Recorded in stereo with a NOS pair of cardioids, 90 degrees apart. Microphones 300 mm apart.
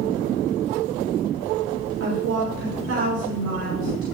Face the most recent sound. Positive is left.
turn(degrees=-50)